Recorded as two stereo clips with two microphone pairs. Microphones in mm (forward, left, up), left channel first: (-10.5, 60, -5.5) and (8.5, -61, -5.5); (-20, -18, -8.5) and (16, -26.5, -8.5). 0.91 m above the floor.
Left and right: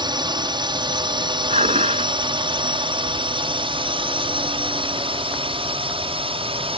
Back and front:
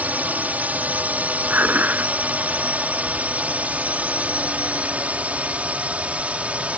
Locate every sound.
0.0 s a drone: 40° right; by 6.8 s 60° right
1.5 s dishes clattering: 55° right